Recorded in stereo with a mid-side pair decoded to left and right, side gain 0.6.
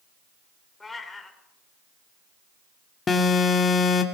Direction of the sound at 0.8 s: 15° left.